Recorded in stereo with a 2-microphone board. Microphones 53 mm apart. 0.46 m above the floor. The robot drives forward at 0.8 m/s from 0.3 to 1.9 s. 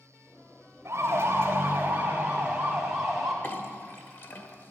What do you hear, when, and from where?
0.8 s a siren: 55° right (ahead or behind), 2.5 m; by 3.3 s 5° right (ahead or behind), 3 m
3.4 s a clink: 40° left (ahead or behind), 1.2 m